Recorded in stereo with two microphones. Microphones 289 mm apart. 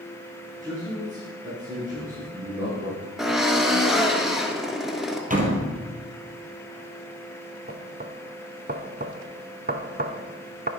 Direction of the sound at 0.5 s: 25° right (ahead or behind).